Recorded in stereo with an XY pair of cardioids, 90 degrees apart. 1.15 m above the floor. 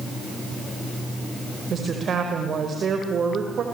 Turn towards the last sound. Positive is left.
turn(degrees=-55)